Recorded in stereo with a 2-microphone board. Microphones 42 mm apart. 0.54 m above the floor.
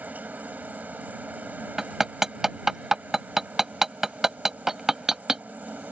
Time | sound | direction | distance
0.0 | a helicopter | 35° right (ahead or behind) | ?
1.8 | hammering | 10° right (ahead or behind) | ?